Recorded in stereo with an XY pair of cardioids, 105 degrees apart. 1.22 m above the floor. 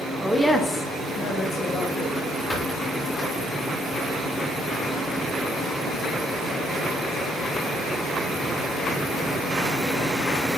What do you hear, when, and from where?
0.2 s a woman speaking: 5° right, 0.6 m; by 2.1 s 75° left, 0.9 m
2.5 s a squeak: 15° left, 1.2 m